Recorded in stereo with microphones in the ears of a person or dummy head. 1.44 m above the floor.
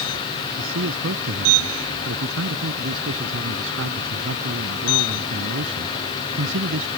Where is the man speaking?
85° right; by 6.9 s 70° right (ahead or behind).